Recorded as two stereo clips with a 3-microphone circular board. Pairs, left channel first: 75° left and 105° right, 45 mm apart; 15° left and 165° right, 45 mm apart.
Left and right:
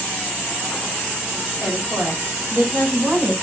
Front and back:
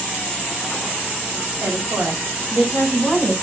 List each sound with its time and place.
1.6 s a woman speaking: 135° right, 7 m; by 3.4 s 120° right, 7 m